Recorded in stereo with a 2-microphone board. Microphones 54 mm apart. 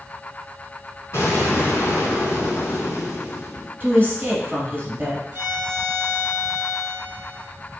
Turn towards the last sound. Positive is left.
turn(degrees=-30)  # may be behind; listen again after turning